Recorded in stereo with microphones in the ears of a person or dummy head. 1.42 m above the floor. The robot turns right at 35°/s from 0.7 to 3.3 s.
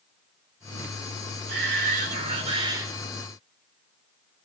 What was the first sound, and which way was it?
A shout, 65° right.